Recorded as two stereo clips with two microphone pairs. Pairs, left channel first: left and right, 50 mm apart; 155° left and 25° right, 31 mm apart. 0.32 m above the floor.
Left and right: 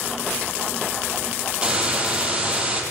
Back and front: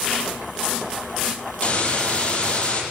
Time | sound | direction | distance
1.6 | a hiss | 165° right | 6 m